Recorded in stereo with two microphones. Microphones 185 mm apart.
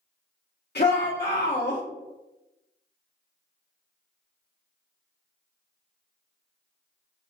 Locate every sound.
0.8 s a shout: 65° left (ahead or behind), 1.0 m